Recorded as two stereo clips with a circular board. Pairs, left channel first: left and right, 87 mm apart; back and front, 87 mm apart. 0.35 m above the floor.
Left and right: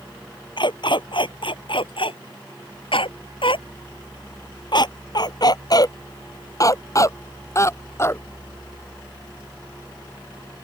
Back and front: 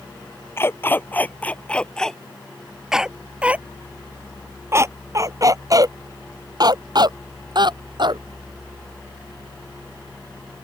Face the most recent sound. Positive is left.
turn(degrees=30)